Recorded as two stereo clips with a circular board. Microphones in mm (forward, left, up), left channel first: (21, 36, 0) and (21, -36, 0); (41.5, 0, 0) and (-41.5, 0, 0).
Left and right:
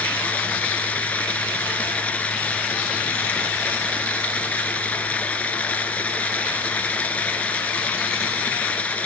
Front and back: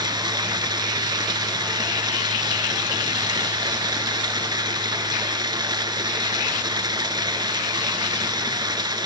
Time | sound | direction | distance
0.0 | running water | 160° left | 0.9 m